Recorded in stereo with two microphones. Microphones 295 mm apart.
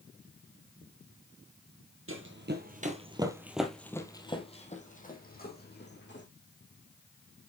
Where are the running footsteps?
45° right (ahead or behind), 1.7 m; by 6.3 s 40° left (ahead or behind), 3.5 m.